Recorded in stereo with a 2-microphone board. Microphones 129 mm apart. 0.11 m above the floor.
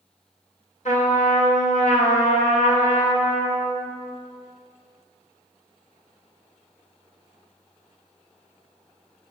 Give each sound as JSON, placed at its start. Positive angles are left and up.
{"t": 0.8, "sound": "a trumpet", "side_deg": 60, "distance_m": 2.0}